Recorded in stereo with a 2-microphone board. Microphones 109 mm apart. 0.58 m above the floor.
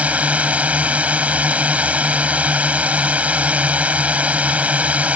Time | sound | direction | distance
0.0 | a drone | 10° right (ahead or behind) | ?